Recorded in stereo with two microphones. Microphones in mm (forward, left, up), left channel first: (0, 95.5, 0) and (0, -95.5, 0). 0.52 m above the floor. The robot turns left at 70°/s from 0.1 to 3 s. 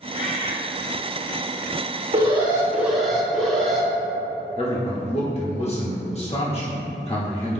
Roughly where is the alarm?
Behind right.